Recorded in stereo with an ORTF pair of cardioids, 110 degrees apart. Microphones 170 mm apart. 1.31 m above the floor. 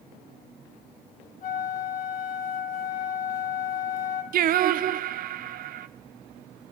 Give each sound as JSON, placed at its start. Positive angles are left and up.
{"t": 1.4, "sound": "a flute", "azimuth_deg": 55, "distance_m": 3.0}
{"t": 4.3, "sound": "singing", "azimuth_deg": -60, "distance_m": 0.8}